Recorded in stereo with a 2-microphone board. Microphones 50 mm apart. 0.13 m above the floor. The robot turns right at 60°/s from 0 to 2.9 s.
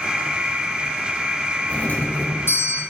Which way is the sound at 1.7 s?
35° left.